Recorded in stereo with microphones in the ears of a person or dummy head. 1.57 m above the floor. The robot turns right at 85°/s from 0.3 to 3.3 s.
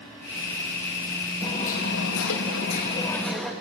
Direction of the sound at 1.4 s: 20° left.